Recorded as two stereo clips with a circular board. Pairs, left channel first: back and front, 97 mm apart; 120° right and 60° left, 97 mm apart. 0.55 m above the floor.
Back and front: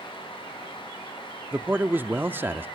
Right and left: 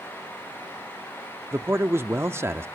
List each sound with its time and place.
1.5 s a man speaking: 40° left, 0.6 m